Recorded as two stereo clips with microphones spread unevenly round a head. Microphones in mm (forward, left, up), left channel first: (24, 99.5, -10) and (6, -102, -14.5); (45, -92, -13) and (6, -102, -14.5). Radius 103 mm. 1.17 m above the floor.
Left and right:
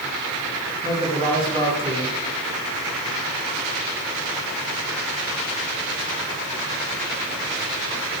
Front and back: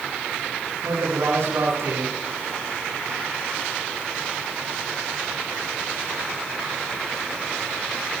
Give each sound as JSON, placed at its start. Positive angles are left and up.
{"t": 0.8, "sound": "a man speaking", "azimuth_deg": -160, "distance_m": 10.0}